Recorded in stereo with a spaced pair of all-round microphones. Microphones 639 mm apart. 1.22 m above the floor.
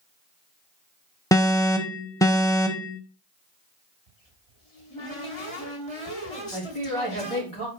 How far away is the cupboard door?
About 1.9 m.